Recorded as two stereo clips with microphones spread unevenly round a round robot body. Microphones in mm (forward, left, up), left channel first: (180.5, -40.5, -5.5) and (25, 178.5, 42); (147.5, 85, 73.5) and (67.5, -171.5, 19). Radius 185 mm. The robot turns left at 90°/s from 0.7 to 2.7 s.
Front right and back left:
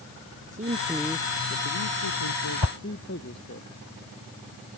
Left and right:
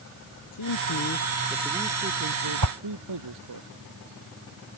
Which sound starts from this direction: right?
A whoosh, at 2.6 s.